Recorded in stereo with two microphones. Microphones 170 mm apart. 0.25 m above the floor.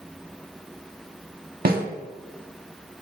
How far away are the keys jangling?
No keys jangling in this recording.